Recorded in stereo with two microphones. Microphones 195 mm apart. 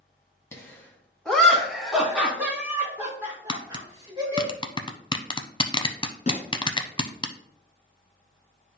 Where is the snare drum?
40° left (ahead or behind), 1.3 m.